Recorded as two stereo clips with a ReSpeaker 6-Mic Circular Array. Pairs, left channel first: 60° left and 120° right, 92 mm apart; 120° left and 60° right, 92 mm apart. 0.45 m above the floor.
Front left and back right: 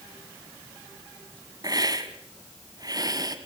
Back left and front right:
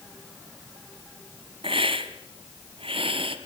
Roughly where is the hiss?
Right.